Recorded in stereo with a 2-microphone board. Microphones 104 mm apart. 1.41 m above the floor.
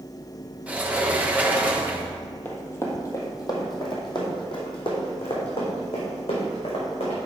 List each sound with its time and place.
0.7 s a sliding door: 15° right (ahead or behind), 1.0 m
2.5 s running footsteps: 20° left (ahead or behind), 1.6 m; by 7.2 s 70° left (ahead or behind), 4.5 m